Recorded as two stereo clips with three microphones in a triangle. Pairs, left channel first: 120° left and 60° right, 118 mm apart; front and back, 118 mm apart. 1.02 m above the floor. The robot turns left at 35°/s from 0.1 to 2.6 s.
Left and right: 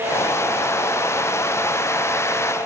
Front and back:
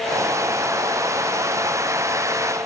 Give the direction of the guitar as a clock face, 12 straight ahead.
No guitar in this recording.